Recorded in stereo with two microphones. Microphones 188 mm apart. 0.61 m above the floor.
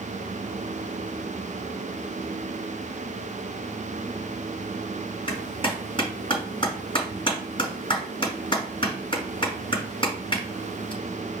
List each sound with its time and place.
5.3 s a clap: 30° left (ahead or behind), 4.5 m